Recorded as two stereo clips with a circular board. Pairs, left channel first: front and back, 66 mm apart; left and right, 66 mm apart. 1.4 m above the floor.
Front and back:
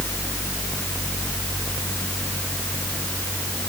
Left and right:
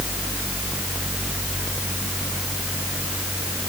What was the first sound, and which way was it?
Only background noise.